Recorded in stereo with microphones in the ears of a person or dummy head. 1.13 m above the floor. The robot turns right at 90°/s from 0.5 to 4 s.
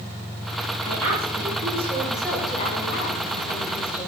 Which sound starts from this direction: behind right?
A woman speaking, at 0.8 s.